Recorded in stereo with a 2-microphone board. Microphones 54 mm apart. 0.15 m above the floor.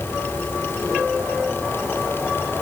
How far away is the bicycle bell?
No bicycle bell in this recording.